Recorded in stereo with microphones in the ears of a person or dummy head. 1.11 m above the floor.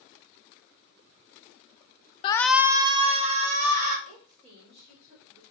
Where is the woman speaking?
35° right (ahead or behind), 3 m.